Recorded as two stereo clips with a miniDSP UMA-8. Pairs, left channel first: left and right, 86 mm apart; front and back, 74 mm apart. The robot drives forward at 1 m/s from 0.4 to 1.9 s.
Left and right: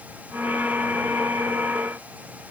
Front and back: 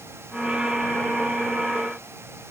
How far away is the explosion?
I don't hear an explosion.